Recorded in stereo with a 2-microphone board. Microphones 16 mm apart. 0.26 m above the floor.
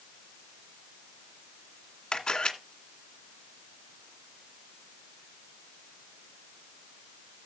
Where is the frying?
No frying in this recording.